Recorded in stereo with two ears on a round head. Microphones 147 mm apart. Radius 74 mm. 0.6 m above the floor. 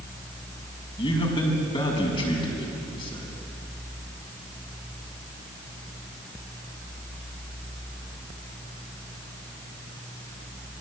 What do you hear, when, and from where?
1.0 s a man speaking: 30° left (ahead or behind), 6 m